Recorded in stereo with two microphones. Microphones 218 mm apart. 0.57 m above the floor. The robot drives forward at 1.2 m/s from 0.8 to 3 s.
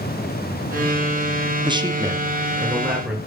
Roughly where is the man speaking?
Right.